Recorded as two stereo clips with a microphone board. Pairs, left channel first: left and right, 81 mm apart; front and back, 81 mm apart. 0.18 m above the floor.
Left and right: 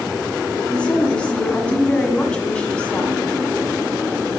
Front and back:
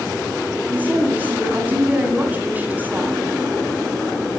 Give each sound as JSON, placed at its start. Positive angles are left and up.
{"t": 0.7, "sound": "a woman speaking", "azimuth_deg": 145, "distance_m": 1.6}